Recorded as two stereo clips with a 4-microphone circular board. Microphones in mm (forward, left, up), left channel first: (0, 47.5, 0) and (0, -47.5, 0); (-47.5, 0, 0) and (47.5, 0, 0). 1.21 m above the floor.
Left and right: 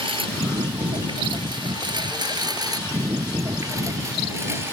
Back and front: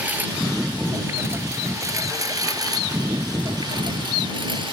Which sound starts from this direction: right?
A lawn mower, at 0.0 s.